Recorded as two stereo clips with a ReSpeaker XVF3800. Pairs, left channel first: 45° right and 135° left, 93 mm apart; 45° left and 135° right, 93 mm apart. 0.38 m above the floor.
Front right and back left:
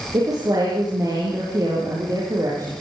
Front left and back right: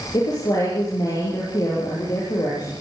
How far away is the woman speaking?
About 7.5 m.